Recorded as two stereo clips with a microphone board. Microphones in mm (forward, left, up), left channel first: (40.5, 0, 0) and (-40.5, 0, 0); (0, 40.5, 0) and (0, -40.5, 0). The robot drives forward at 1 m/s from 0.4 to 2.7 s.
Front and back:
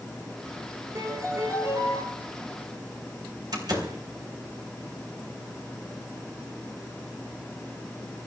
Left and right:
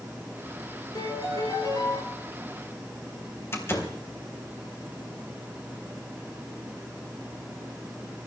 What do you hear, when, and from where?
0.9 s a piano: 130° left, 9.5 m; by 2.0 s 135° left, 10.5 m
3.5 s a door slam: 150° left, 3.5 m